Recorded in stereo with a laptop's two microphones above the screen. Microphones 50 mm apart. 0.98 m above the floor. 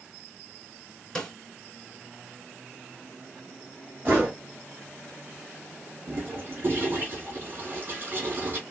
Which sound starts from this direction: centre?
A snare drum, at 1.1 s.